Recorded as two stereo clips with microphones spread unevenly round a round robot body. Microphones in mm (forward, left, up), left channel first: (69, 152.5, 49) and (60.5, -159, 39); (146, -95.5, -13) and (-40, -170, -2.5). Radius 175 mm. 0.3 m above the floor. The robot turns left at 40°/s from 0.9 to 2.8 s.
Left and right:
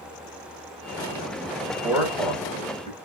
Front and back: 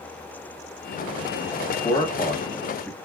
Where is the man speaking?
10° right, 1.4 m; by 3.0 s 50° right, 1.4 m.